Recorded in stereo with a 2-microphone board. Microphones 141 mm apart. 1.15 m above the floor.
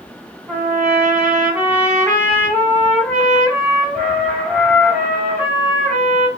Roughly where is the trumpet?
Centre.